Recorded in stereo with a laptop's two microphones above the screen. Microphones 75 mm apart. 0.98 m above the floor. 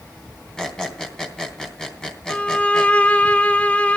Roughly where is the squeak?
Centre.